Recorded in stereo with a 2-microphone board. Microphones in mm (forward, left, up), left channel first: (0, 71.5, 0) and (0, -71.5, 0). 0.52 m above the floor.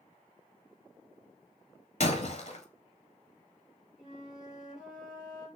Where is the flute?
Centre (ahead or behind), 2.5 m.